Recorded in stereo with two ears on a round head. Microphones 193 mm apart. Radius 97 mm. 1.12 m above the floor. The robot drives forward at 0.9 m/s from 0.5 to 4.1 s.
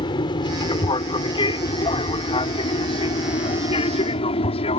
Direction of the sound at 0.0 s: 20° left (ahead or behind).